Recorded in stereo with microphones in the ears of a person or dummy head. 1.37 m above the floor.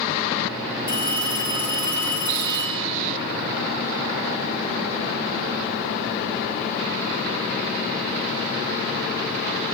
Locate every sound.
0.9 s a phone ringing: 25° left (ahead or behind), 3 m